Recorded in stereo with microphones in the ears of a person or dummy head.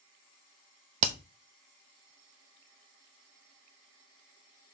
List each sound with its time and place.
1.0 s hammering: 35° right (ahead or behind), 0.8 m